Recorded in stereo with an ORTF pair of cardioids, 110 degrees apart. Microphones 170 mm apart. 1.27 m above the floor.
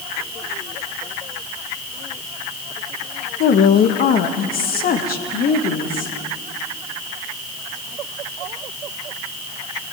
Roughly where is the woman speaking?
Ahead left.